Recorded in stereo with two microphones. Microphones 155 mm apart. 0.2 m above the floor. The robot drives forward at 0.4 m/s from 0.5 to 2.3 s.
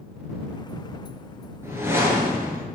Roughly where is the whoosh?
Centre.